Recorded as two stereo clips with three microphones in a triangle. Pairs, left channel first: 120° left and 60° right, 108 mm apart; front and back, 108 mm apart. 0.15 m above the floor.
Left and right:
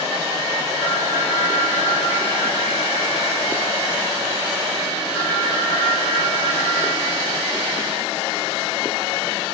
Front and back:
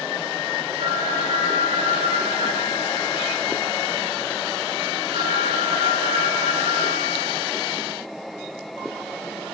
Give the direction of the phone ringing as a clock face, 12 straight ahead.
12 o'clock.